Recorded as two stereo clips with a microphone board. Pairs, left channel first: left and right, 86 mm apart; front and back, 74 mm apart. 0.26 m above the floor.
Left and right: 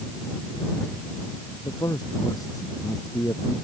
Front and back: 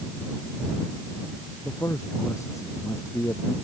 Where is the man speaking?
45° left.